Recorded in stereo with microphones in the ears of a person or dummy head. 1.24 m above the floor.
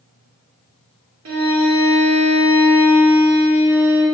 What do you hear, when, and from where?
1.2 s a violin: 70° right (ahead or behind), 1.8 m